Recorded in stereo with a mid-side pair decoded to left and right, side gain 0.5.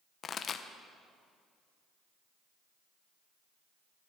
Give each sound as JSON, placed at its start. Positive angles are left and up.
{"t": 0.2, "sound": "a pop", "azimuth_deg": 45, "distance_m": 1.1}